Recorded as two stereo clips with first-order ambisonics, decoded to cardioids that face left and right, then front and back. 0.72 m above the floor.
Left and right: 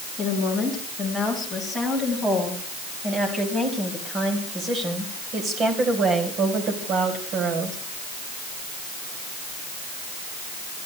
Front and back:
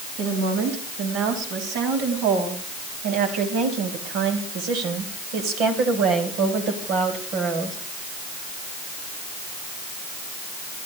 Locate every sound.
0.2 s a woman speaking: 175° left, 6 m; by 7.8 s 130° right, 3.5 m